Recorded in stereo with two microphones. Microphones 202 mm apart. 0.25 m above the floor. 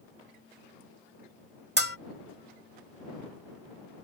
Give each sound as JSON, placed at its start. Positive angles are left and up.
{"t": 1.8, "sound": "a bell", "side_deg": -60}